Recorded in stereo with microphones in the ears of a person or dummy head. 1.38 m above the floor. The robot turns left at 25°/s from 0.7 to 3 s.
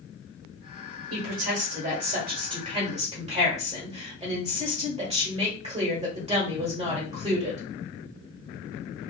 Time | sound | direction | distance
1.1 | a woman speaking | 105° right | 1.3 m